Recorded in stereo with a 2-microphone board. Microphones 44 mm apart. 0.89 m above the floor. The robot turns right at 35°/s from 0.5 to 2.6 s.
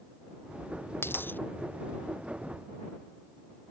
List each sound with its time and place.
1.0 s a dropped coin: 60° left (ahead or behind); by 1.4 s 45° left (ahead or behind)